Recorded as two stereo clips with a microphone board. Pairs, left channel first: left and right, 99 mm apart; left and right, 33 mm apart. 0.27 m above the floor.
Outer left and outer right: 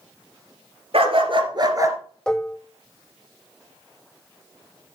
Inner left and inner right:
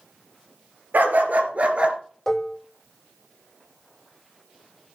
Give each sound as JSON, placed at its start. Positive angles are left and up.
{"t": 0.9, "sound": "a dog barking", "side_deg": -70, "distance_m": 2.0}
{"t": 2.3, "sound": "dishes clattering", "side_deg": 5, "distance_m": 0.6}